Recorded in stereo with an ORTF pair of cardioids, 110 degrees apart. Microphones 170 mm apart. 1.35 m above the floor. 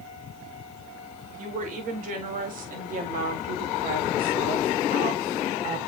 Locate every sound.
1.4 s a woman speaking: 50° right, 5.5 m; by 5.8 s 70° right, 2.5 m